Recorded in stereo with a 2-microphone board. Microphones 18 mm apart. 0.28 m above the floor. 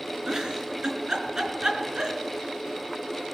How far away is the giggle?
About 4 m.